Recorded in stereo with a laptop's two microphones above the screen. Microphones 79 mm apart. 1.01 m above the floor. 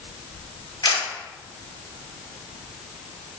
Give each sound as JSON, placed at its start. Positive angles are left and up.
{"t": 0.8, "sound": "a camera shutter", "side_deg": 85, "distance_m": 2.5}